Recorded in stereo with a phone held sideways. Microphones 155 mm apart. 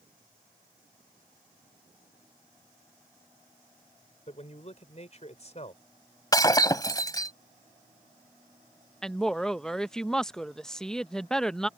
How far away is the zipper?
No zipper in this recording.